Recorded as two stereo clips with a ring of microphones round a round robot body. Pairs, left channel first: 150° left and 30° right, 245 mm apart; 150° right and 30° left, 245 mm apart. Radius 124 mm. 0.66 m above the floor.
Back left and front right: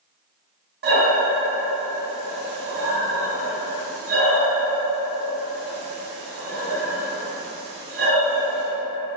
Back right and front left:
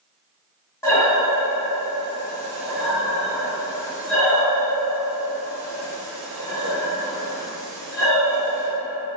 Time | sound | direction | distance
0.8 | breathing | 75° right | 1.0 m